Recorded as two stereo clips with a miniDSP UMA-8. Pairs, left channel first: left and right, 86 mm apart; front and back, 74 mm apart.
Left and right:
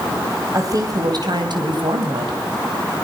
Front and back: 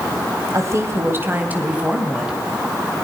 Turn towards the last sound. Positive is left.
turn(degrees=-95)